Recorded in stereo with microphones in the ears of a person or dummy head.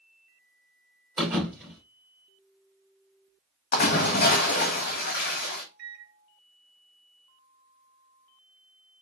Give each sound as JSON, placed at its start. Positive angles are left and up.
{"t": 1.2, "sound": "a thud", "side_deg": -5, "distance_m": 1.9}
{"t": 3.7, "sound": "a splash", "side_deg": 50, "distance_m": 1.3}
{"t": 5.8, "sound": "a microwave", "side_deg": -55, "distance_m": 0.7}